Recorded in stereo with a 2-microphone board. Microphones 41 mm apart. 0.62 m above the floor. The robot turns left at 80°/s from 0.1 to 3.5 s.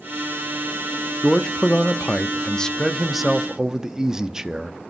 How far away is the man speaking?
About 0.6 m.